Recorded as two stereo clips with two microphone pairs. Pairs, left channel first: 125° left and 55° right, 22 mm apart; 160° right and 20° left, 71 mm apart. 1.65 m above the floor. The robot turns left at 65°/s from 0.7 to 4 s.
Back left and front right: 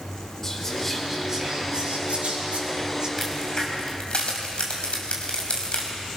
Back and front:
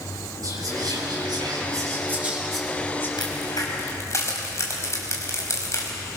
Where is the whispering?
40° left, 7 m; by 3.1 s 110° right, 7 m.